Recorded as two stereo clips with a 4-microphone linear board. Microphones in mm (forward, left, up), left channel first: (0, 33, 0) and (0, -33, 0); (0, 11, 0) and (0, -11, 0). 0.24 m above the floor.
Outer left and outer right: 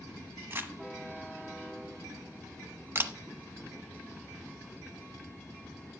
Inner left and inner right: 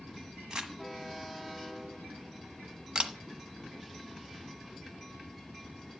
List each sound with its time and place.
0.5 s crumpling: 35° right (ahead or behind), 1.3 m
3.0 s a camera shutter: 35° right (ahead or behind), 1.1 m